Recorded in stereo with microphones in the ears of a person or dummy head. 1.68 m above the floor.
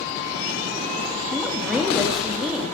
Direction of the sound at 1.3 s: Centre (ahead or behind).